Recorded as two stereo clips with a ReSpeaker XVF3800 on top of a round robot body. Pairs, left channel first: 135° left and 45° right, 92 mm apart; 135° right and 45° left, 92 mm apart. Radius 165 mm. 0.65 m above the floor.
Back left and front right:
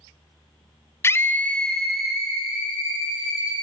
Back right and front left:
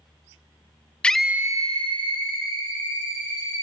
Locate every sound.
1.0 s a scream: 160° left, 0.6 m; by 3.5 s 35° left, 1.9 m